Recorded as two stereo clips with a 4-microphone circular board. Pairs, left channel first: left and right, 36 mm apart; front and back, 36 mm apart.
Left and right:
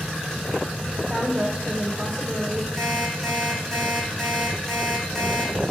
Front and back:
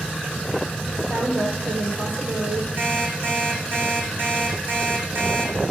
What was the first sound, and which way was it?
A woman speaking, 175° left.